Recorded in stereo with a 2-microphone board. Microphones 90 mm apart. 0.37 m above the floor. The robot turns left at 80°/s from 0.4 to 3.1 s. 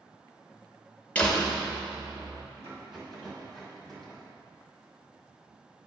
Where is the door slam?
20° left, 0.6 m; by 2.5 s 85° right, 0.6 m.